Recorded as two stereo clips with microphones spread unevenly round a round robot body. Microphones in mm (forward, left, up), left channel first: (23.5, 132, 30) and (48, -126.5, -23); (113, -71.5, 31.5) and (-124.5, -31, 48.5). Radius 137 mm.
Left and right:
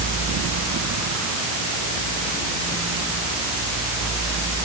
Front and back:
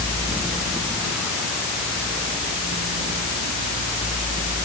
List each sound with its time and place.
Only background noise.